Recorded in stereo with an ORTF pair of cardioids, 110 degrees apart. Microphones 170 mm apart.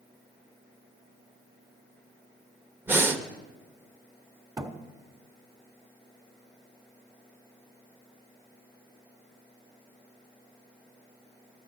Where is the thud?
20° right, 1.5 m.